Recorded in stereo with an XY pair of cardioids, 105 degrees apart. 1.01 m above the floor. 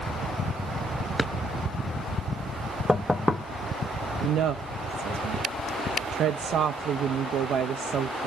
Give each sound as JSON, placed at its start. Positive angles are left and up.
{"t": 1.2, "sound": "a drawer", "azimuth_deg": -10, "distance_m": 0.5}
{"t": 2.9, "sound": "knocking", "azimuth_deg": 15, "distance_m": 0.7}
{"t": 4.2, "sound": "a woman speaking", "azimuth_deg": -65, "distance_m": 0.6}